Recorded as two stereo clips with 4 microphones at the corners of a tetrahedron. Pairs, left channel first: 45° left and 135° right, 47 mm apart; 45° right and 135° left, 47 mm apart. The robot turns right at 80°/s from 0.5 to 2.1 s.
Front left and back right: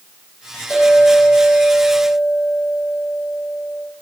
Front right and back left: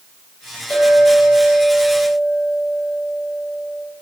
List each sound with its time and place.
0.7 s a clink: 25° left, 2.5 m; by 3.8 s 140° left, 2.5 m